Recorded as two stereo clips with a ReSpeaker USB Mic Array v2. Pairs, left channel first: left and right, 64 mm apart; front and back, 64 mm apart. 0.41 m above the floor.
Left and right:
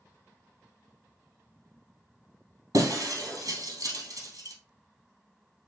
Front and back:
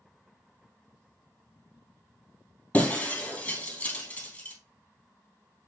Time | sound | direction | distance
2.7 | breaking glass | 70° right | 2 m